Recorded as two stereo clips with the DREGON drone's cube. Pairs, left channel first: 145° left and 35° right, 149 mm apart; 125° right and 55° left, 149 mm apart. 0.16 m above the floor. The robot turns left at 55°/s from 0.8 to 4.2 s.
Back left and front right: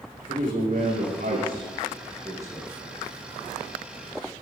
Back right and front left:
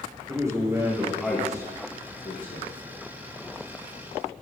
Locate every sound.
0.3 s a man speaking: 15° right, 6 m; by 2.7 s 120° right, 6 m